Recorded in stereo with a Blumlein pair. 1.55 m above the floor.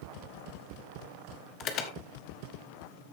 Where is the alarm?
35° left, 1.5 m.